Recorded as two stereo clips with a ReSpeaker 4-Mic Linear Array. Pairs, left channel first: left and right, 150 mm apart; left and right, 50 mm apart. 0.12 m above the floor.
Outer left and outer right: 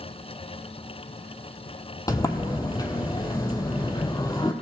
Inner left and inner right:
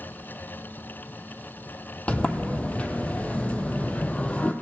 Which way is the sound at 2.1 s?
25° left (ahead or behind).